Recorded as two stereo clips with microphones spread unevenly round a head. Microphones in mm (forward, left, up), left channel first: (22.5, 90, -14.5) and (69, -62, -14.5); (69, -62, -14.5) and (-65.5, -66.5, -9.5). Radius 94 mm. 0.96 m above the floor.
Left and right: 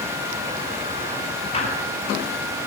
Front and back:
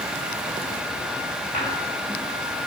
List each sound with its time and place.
1.5 s a squeak: 55° left, 4.5 m